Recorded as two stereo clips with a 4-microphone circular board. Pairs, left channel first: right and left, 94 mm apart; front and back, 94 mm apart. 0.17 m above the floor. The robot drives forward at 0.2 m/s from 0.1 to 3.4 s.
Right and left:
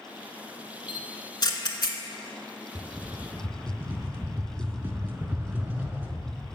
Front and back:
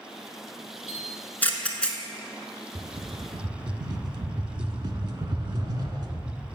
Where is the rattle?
150° left, 0.6 m; by 6.4 s 160° left, 0.7 m.